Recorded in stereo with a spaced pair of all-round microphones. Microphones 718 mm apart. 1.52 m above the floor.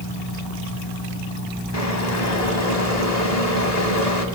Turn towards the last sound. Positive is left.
turn(degrees=60)  # may be behind; listen again after turning